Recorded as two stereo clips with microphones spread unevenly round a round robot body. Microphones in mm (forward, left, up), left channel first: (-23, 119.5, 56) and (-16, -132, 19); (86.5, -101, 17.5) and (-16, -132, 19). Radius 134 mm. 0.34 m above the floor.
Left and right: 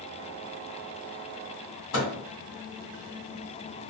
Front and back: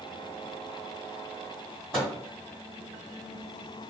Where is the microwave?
110° left, 1.7 m.